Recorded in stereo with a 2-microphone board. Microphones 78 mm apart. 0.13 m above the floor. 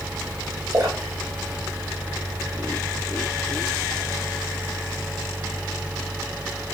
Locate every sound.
0.7 s a splash: 40° right (ahead or behind), 9.5 m